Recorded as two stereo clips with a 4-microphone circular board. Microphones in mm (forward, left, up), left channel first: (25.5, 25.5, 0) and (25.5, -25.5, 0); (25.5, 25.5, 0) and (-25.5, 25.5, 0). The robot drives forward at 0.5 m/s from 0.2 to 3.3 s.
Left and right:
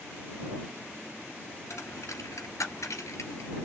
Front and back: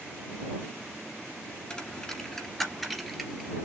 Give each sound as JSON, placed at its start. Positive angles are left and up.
{"t": 1.7, "sound": "a dropped coin", "azimuth_deg": 75, "distance_m": 2.0}